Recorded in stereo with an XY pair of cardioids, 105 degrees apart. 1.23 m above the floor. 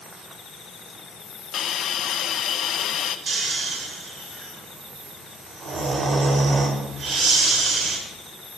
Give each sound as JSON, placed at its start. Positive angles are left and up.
{"t": 1.5, "sound": "a hiss", "azimuth_deg": 60, "distance_m": 0.9}
{"t": 3.3, "sound": "snoring", "azimuth_deg": -50, "distance_m": 3.5}